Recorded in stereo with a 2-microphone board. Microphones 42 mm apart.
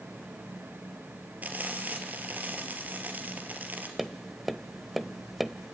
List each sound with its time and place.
1.4 s frying: 40° right (ahead or behind), 3 m
4.0 s tapping: 5° right (ahead or behind), 0.9 m